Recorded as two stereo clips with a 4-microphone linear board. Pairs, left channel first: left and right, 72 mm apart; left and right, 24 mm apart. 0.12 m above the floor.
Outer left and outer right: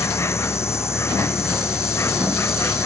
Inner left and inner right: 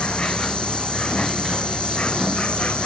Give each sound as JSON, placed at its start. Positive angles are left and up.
{"t": 0.0, "sound": "an insect", "side_deg": 40}